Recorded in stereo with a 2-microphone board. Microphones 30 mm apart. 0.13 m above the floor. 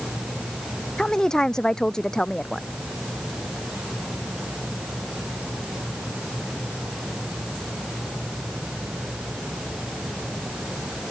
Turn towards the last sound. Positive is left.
turn(degrees=25)  # may be behind; listen again after turning